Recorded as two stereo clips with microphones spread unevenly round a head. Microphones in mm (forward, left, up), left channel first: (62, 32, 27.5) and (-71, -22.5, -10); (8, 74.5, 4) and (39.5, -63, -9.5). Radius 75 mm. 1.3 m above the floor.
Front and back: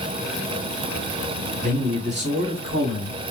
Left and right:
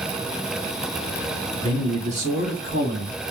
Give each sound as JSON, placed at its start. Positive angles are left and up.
{"t": 1.6, "sound": "a man speaking", "azimuth_deg": -135, "distance_m": 1.0}